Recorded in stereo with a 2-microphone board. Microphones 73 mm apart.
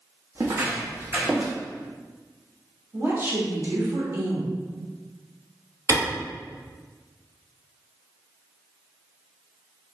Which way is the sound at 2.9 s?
40° right (ahead or behind).